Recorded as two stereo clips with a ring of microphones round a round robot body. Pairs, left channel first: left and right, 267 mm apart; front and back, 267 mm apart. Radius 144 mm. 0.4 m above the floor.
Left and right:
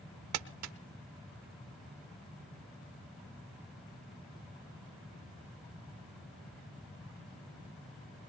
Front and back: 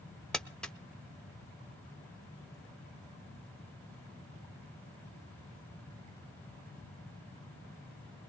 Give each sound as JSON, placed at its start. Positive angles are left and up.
{"t": 0.3, "sound": "crumpling", "azimuth_deg": -85, "distance_m": 0.8}